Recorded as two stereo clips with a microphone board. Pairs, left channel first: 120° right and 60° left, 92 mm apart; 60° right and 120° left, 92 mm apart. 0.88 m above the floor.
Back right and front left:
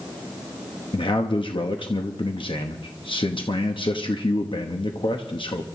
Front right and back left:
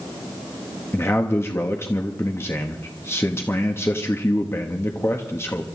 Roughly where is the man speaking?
Behind right.